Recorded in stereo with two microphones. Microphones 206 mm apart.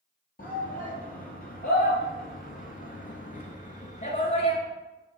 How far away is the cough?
I don't hear a cough.